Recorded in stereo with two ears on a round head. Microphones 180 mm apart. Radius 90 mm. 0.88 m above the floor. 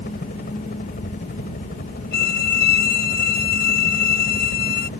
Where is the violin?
50° left (ahead or behind).